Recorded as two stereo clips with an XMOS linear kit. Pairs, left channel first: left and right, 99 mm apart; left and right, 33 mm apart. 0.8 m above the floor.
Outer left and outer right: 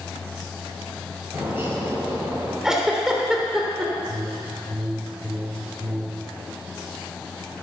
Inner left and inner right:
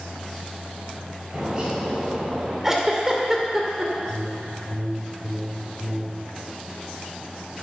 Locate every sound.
1.3 s a bird: 20° right (ahead or behind), 5 m
2.6 s a giggle: 5° right (ahead or behind), 2.5 m
4.1 s a whoosh: 35° right (ahead or behind), 2 m